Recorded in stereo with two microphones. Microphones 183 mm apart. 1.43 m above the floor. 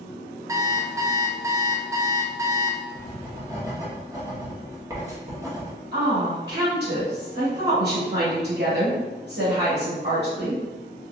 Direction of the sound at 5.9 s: 70° right (ahead or behind).